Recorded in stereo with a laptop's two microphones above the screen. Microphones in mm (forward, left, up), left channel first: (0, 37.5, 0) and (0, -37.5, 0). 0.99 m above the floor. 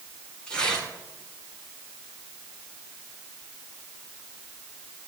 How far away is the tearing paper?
About 9 m.